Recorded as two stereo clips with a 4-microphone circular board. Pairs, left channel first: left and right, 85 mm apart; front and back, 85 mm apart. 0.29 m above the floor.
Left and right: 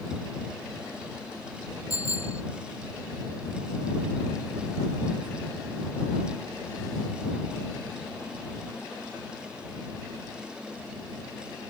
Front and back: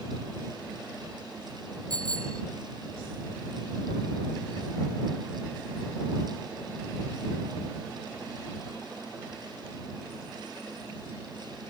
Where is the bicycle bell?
140° left.